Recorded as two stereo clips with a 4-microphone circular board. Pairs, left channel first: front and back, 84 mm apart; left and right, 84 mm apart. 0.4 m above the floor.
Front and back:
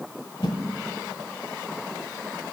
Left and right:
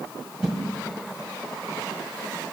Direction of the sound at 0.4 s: 10° right.